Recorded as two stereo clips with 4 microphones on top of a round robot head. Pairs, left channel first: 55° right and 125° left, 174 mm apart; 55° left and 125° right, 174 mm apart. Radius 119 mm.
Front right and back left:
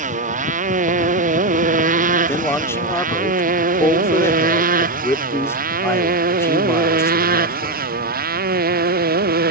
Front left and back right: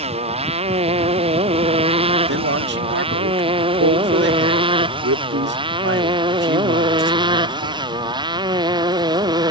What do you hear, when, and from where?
0.0 s a motorcycle: 175° left; by 9.5 s 165° left
2.3 s a man speaking: 130° right